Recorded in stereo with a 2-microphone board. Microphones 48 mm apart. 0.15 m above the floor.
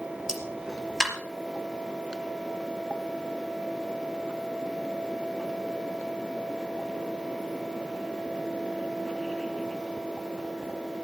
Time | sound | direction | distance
0.3 | a pop | 15° right (ahead or behind) | 4 m